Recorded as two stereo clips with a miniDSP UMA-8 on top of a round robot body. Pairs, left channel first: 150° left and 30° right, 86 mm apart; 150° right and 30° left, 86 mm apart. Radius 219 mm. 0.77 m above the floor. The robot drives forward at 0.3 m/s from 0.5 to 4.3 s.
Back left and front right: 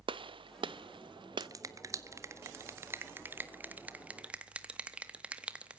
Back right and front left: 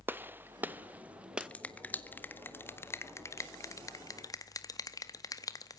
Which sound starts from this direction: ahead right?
A gunshot, at 0.1 s.